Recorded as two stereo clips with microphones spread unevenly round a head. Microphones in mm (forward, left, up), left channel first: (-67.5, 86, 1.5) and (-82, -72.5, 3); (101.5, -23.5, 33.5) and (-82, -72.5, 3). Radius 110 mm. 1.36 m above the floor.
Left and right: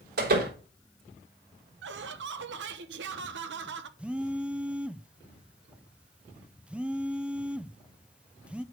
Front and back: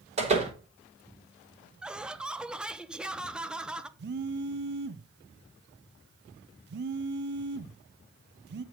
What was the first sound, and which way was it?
A door slam, 110° right.